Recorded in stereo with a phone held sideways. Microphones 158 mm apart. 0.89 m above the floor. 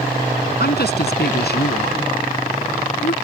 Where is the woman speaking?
80° left.